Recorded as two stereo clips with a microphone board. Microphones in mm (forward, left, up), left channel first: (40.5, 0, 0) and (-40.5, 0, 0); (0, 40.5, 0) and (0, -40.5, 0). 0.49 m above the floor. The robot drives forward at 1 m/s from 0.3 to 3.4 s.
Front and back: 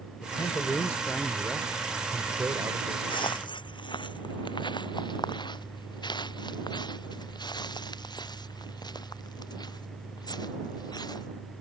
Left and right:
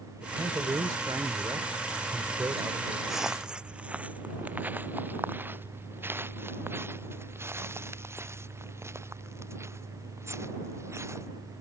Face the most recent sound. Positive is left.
turn(degrees=-35)